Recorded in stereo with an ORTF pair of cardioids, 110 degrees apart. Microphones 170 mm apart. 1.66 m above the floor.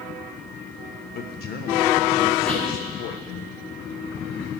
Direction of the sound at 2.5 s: 5° left.